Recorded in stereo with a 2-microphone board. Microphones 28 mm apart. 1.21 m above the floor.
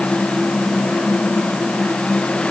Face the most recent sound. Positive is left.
No sound to turn to.